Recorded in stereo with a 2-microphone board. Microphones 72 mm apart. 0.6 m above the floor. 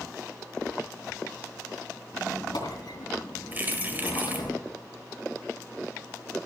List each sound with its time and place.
2.1 s a squeak: 75° left (ahead or behind), 2.5 m
3.5 s keys jangling: 25° right (ahead or behind), 1.5 m